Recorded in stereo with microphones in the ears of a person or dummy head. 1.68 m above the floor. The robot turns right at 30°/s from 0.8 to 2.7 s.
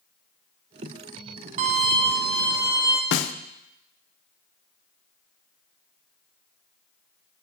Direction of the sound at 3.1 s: 60° left (ahead or behind).